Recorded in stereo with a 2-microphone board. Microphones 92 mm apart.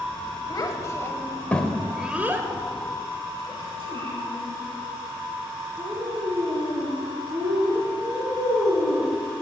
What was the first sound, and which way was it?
A child speaking, 40° left (ahead or behind).